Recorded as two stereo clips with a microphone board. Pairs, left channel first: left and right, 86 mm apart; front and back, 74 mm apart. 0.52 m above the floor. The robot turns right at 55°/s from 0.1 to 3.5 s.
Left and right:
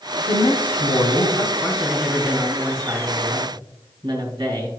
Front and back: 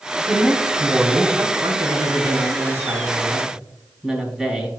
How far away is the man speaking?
About 3 m.